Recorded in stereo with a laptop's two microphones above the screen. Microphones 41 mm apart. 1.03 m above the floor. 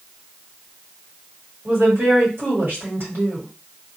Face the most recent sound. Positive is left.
turn(degrees=-65)  # may be behind; listen again after turning